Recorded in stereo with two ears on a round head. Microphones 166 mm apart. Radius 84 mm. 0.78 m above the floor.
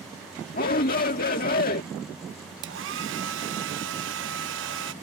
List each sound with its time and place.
0.5 s a shout: 50° left (ahead or behind)
2.6 s a hair dryer: 75° right (ahead or behind)